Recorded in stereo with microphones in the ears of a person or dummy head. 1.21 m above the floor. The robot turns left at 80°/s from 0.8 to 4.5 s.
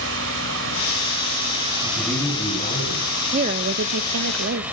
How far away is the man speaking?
About 8 m.